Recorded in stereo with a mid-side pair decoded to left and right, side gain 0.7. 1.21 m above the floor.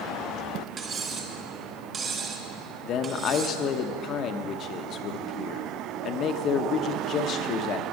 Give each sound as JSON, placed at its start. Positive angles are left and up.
{"t": 0.8, "sound": "cutlery clinking", "azimuth_deg": -30, "distance_m": 2.0}
{"t": 2.9, "sound": "a man speaking", "azimuth_deg": 45, "distance_m": 1.0}